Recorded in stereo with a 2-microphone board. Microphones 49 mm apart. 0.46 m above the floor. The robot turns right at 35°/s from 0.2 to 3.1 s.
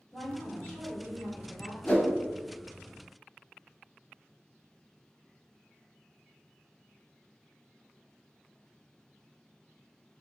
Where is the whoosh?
30° left (ahead or behind), 0.6 m; by 2.1 s 40° left (ahead or behind), 0.6 m.